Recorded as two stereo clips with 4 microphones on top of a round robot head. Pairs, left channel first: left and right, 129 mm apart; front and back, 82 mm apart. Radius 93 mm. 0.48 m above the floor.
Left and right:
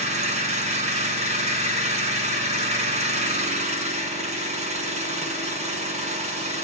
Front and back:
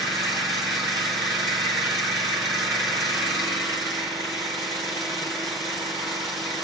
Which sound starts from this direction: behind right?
An engine running, at 0.0 s.